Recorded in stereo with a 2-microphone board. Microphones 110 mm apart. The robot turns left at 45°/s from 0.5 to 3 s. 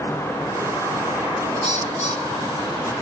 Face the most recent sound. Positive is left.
turn(degrees=35)